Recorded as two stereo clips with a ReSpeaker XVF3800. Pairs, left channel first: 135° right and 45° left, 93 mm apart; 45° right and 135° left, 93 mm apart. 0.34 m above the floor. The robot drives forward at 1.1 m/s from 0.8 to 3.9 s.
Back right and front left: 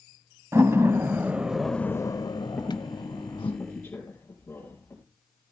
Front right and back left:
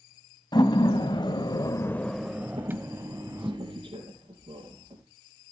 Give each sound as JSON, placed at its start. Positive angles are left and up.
{"t": 0.5, "sound": "a door slam", "azimuth_deg": -15, "distance_m": 1.3}
{"t": 2.6, "sound": "a squeak", "azimuth_deg": 150, "distance_m": 3.0}